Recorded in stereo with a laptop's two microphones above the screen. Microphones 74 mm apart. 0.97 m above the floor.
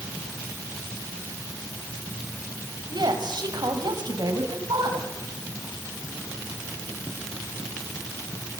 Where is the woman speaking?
75° right (ahead or behind), 4.5 m.